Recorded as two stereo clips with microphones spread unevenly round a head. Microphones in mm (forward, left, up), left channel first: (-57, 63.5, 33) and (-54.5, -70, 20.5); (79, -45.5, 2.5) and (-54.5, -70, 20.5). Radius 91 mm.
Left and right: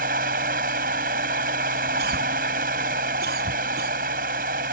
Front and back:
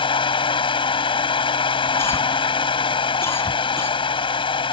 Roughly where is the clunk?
No clunk in this recording.